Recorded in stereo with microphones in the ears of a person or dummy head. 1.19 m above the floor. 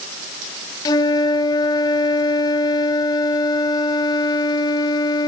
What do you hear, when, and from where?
0.8 s a flute: 25° left (ahead or behind), 1.0 m